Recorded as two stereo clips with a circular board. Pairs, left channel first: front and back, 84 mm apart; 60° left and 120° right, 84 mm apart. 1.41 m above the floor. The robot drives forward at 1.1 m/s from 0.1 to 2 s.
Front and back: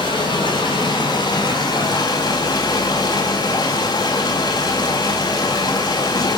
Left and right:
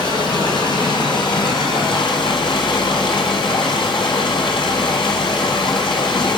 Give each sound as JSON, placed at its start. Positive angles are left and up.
{"t": 0.0, "sound": "running water", "azimuth_deg": 25, "distance_m": 6.0}